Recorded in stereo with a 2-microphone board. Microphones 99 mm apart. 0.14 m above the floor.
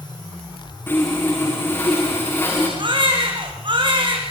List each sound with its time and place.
0.9 s sawing: 25° left (ahead or behind), 8 m
2.8 s a baby crying: 50° right (ahead or behind), 6 m